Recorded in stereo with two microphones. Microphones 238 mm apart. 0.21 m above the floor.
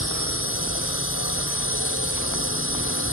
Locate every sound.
0.0 s a drone: 60° left (ahead or behind)